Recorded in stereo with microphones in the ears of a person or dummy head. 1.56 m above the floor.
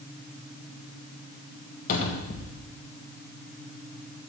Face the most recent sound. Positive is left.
turn(degrees=50)  # may be behind; listen again after turning